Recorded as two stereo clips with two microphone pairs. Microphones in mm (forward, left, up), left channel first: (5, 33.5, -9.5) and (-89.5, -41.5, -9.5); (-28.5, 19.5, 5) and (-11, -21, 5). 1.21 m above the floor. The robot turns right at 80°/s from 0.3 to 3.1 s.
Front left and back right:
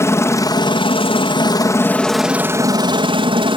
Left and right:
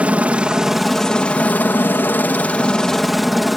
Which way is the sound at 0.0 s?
20° right.